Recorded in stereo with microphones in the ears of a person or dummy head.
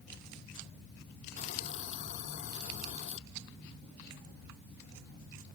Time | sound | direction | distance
1.4 | a hiss | 40° left (ahead or behind) | ?